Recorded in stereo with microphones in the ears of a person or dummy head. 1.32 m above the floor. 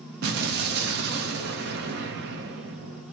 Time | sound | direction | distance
0.2 | an explosion | 50° right (ahead or behind) | 0.7 m